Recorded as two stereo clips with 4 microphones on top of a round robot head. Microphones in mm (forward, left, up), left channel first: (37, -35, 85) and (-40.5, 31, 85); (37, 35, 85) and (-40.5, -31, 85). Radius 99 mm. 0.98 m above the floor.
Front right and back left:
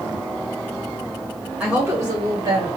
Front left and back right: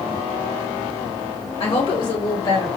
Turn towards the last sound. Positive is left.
turn(degrees=100)